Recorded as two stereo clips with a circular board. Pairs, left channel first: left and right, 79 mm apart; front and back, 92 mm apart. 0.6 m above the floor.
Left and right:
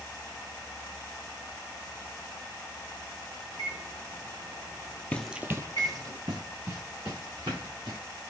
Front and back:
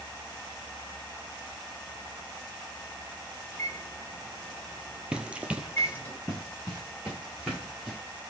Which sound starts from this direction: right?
A microwave, at 3.5 s.